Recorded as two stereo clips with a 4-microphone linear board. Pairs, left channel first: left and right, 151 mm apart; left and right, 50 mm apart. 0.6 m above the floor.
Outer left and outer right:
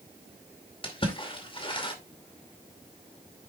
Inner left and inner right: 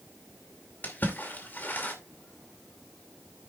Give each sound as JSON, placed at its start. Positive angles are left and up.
{"t": 0.8, "sound": "a splash", "side_deg": 35, "distance_m": 2.5}